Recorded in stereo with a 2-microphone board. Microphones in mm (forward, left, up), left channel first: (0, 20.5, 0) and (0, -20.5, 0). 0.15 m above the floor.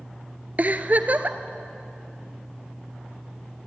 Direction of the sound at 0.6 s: 45° right (ahead or behind).